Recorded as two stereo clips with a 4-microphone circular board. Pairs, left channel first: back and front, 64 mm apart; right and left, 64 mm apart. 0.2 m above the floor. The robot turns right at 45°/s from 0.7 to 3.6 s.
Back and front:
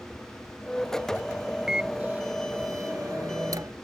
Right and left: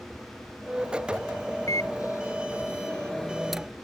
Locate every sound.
1.7 s a microwave: 80° right; by 3.7 s 10° left